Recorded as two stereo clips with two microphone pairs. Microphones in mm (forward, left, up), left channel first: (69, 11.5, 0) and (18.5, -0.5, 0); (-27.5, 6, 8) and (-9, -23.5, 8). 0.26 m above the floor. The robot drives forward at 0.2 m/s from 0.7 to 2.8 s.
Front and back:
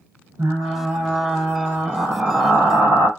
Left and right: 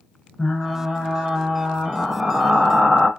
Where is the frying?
175° left, 0.8 m.